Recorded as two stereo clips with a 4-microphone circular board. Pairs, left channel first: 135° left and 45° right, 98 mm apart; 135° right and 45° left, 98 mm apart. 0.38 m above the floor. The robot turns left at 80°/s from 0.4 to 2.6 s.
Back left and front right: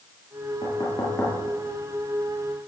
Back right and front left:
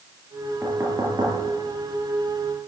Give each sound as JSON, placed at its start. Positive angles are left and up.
{"t": 0.6, "sound": "knocking", "azimuth_deg": 120, "distance_m": 5.5}